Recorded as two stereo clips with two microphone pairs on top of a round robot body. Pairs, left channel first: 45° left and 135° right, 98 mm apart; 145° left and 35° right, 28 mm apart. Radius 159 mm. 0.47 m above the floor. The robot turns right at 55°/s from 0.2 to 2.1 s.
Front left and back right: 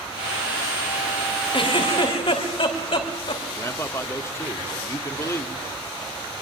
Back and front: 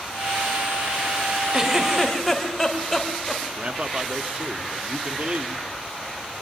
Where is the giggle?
25° left, 3.5 m; by 3.4 s 55° left, 3.5 m.